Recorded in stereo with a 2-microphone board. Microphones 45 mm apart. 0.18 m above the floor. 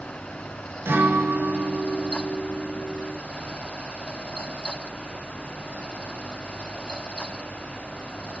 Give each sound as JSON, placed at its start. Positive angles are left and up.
{"t": 0.8, "sound": "a guitar", "side_deg": -60, "distance_m": 0.7}